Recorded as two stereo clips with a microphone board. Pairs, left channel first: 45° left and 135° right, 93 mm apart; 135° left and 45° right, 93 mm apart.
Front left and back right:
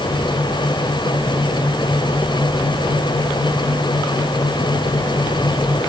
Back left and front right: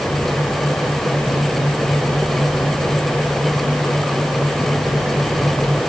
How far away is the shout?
No shout in this recording.